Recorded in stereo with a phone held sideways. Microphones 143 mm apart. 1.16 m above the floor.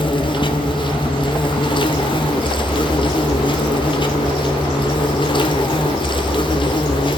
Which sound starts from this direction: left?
An insect, at 0.0 s.